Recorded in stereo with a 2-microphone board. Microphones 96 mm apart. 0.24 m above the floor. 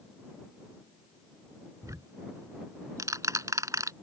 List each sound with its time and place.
1.8 s ticking: 35° right (ahead or behind)